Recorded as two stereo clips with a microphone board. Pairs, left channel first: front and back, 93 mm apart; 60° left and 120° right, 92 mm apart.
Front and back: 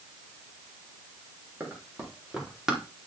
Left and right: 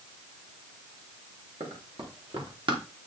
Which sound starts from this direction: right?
Running footsteps, at 1.6 s.